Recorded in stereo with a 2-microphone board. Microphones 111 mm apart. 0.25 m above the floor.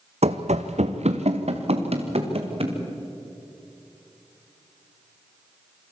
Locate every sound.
0.2 s running footsteps: 70° right (ahead or behind), 1.0 m; by 2.8 s 60° right (ahead or behind), 3 m